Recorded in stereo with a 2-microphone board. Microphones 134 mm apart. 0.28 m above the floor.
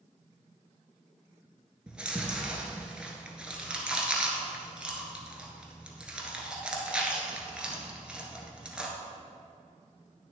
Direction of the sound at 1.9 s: 5° right (ahead or behind).